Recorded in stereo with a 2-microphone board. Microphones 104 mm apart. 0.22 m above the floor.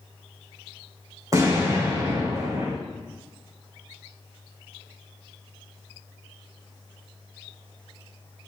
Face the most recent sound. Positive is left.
turn(degrees=-35)  # may be behind; listen again after turning